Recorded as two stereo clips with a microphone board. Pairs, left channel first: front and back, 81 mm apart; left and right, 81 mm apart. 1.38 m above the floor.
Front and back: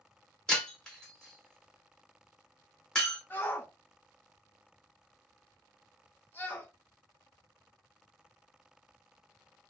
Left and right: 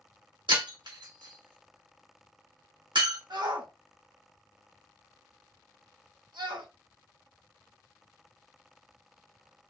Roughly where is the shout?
Ahead right.